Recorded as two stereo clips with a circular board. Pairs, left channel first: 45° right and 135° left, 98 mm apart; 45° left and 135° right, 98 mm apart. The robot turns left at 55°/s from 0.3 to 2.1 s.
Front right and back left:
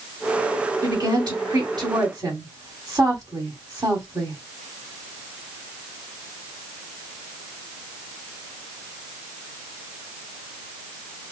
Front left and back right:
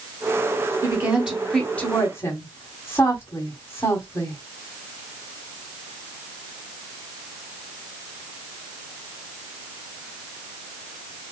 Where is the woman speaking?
170° left, 2.0 m; by 4.4 s 100° left, 2.0 m.